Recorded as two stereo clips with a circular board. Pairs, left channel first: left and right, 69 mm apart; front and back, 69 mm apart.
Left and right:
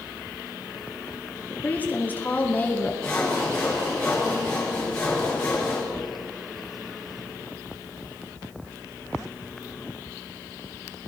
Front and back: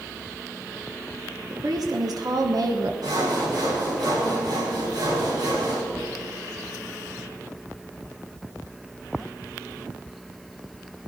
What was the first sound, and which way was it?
A woman speaking, 155° left.